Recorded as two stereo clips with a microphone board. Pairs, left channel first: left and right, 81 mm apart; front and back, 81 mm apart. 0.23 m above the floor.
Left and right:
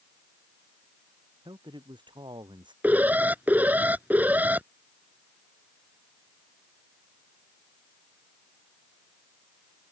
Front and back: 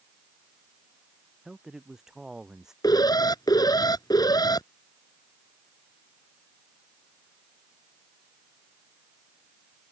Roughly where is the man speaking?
Right.